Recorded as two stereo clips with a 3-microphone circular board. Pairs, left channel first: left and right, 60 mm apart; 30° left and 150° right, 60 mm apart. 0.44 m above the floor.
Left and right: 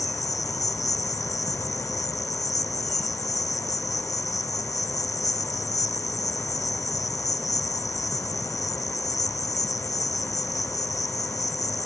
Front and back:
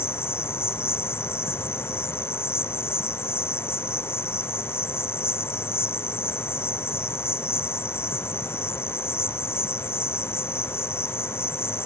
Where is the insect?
75° left.